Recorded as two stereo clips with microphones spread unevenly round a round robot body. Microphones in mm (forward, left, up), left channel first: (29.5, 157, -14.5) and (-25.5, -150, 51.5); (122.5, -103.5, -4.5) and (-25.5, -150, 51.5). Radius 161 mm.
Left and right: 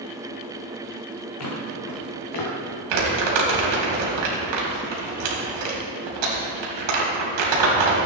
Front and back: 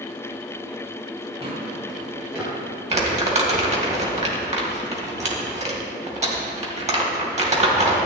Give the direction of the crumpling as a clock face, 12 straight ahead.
4 o'clock.